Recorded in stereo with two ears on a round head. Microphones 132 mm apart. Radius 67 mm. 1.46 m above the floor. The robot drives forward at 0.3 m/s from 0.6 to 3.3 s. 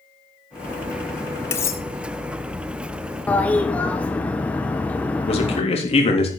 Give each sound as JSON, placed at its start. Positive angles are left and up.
{"t": 1.5, "sound": "cutlery clinking", "side_deg": 20, "distance_m": 0.7}
{"t": 3.3, "sound": "a toilet flushing", "side_deg": 10, "distance_m": 0.9}
{"t": 5.2, "sound": "a man speaking", "side_deg": 45, "distance_m": 3.5}